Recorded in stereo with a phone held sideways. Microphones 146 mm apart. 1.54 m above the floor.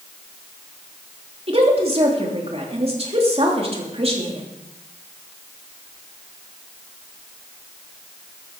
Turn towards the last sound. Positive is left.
turn(degrees=-45)  # may be behind; listen again after turning